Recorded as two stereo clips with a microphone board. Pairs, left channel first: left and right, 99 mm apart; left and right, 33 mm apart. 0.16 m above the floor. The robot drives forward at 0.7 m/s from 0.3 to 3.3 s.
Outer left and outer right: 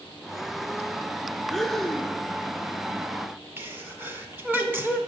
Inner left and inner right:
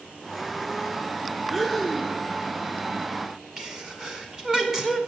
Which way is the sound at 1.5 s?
Centre (ahead or behind).